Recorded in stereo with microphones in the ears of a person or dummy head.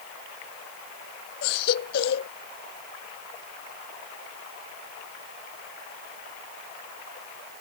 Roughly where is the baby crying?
Left.